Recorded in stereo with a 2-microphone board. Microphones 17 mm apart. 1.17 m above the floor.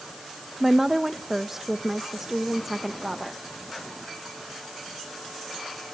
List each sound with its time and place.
0.6 s a woman speaking: 20° right (ahead or behind), 0.8 m